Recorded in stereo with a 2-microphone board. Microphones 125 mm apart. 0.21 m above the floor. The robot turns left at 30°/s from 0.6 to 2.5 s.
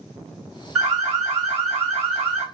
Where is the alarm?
170° right, 2 m; by 2.4 s 140° left, 2 m.